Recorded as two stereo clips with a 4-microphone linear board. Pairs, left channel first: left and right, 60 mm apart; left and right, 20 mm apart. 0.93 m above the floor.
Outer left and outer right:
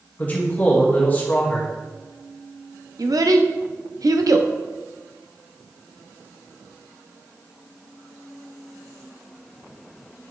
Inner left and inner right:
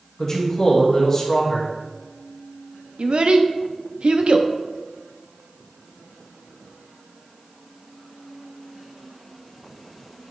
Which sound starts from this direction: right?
A child speaking, at 3.0 s.